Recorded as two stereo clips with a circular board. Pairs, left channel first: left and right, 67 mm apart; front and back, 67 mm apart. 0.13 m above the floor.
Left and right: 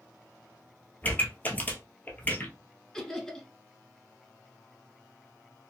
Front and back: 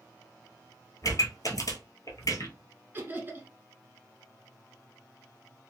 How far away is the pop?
About 1.0 m.